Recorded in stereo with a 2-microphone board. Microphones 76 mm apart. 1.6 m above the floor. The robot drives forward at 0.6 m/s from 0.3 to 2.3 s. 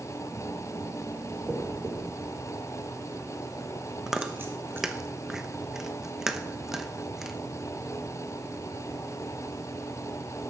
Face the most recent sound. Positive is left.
turn(degrees=-5)  # may be behind; listen again after turning